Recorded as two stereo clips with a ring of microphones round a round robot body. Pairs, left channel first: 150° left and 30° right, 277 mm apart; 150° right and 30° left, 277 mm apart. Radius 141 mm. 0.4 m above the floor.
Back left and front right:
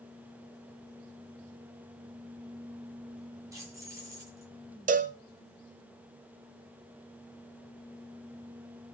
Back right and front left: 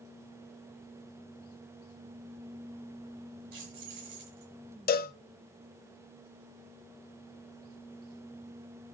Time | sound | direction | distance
3.5 | keys jangling | 50° left | 6.5 m
4.9 | a cowbell | 90° right | 1.0 m